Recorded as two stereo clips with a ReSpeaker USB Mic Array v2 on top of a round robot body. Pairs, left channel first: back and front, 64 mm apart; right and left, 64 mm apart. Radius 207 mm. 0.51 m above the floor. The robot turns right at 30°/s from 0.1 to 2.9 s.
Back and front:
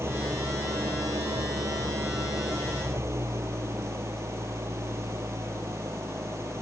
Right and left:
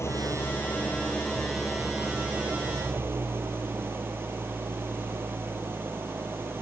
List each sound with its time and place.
0.0 s an engine running: 45° right; by 6.6 s 40° left